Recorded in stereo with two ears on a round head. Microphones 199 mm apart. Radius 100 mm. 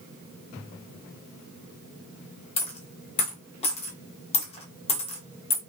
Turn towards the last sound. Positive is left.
turn(degrees=30)  # may be behind; listen again after turning